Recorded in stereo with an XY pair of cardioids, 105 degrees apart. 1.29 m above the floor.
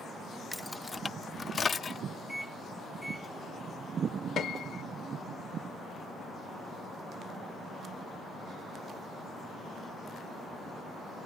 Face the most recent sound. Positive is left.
turn(degrees=60)